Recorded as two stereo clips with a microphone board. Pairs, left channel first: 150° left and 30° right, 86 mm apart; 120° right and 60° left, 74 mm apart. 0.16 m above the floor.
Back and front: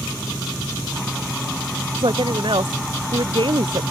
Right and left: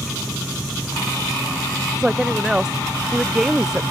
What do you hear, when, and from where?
1.9 s a woman speaking: 20° right